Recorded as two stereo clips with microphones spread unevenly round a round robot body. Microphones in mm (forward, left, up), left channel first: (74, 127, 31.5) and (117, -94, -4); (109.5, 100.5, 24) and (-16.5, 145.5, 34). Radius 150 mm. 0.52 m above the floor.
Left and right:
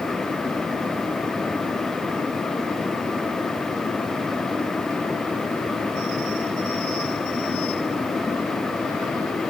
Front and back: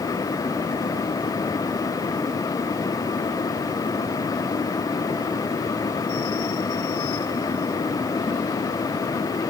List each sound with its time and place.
Only background noise.